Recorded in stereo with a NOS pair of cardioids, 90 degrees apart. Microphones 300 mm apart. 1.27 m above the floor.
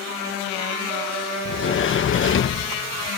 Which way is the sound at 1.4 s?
40° left.